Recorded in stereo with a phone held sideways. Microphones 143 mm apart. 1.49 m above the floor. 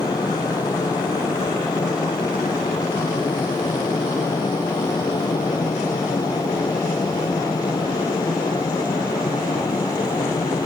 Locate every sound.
0.0 s a fan: 25° left (ahead or behind)